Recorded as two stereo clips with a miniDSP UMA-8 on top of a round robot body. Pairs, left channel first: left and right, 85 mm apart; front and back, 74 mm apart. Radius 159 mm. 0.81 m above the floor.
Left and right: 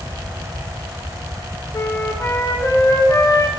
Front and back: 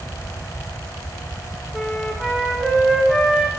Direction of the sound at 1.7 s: 95° left.